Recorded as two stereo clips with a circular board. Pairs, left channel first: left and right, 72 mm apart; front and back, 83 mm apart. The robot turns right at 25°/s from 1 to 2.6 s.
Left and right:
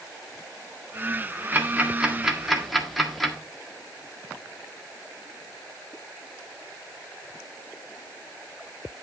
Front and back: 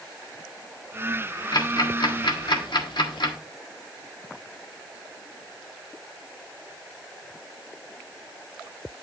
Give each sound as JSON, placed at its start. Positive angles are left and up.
{"t": 1.5, "sound": "ticking", "azimuth_deg": -30, "distance_m": 1.6}